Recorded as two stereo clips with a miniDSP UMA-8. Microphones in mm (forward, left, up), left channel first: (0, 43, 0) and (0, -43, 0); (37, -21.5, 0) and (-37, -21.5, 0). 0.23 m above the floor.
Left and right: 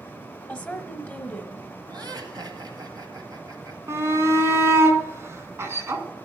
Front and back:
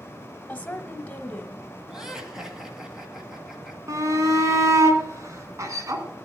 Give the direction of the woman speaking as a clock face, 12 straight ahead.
11 o'clock.